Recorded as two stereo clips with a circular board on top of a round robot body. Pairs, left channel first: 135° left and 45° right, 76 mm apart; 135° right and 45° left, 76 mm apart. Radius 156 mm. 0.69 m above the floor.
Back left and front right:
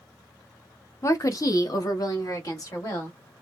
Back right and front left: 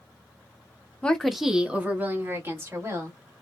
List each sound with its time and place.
1.0 s a woman speaking: 155° left, 0.8 m; by 3.2 s 95° left, 1.9 m